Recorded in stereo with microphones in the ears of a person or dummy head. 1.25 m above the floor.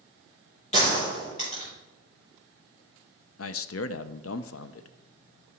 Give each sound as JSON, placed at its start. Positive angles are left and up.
{"t": 0.7, "sound": "a gunshot", "side_deg": 40, "distance_m": 3.5}
{"t": 3.4, "sound": "a man speaking", "side_deg": 70, "distance_m": 0.5}